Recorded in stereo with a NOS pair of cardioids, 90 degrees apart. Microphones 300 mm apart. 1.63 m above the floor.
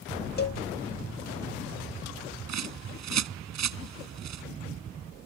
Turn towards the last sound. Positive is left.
turn(degrees=-60)